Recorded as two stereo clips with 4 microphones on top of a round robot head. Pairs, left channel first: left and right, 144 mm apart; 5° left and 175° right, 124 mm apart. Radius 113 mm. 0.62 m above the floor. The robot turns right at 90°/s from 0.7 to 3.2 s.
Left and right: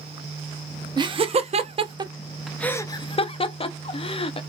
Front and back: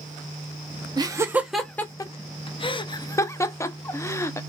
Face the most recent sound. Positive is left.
turn(degrees=65)